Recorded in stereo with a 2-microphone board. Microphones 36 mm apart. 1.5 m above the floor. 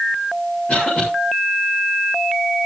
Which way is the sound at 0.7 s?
30° left (ahead or behind).